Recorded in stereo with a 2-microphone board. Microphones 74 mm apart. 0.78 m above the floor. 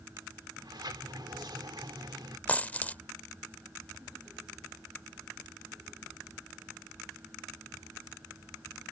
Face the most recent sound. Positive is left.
turn(degrees=20)  # may be behind; listen again after turning